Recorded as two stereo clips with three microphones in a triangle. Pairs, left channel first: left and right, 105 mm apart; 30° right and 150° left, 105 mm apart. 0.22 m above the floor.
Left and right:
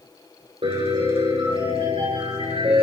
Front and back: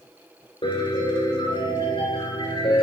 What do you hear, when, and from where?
0.6 s a piano: 65° right, 8.5 m